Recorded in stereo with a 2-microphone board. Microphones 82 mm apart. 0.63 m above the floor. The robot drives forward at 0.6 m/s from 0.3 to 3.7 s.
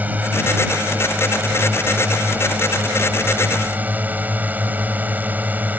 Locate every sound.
0.0 s a drone: 20° right (ahead or behind)